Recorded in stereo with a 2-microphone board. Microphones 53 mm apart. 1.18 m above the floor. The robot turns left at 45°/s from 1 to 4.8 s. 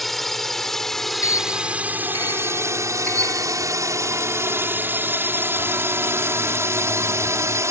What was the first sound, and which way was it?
A drone, centre (ahead or behind).